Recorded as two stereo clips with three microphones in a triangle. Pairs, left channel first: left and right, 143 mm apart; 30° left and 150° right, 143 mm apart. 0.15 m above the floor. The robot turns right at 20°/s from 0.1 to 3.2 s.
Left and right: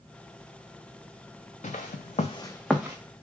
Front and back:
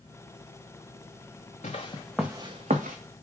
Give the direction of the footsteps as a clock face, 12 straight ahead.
10 o'clock.